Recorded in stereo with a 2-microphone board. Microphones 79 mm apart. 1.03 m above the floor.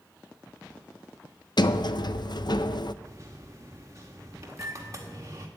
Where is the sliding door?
65° left (ahead or behind), 0.5 m.